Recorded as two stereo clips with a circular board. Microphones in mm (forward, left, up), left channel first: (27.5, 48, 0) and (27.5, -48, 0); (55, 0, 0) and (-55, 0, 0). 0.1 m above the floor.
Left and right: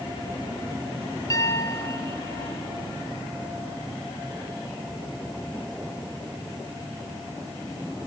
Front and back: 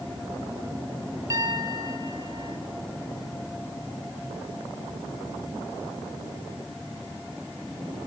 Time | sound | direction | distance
1.3 | a piano | 130° left | 2.5 m